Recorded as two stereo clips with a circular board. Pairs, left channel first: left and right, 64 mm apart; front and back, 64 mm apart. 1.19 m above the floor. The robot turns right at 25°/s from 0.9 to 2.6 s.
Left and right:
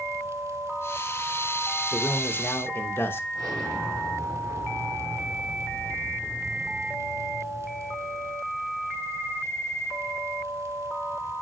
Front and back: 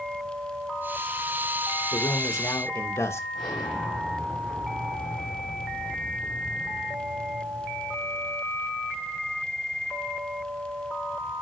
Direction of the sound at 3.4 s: 80° right.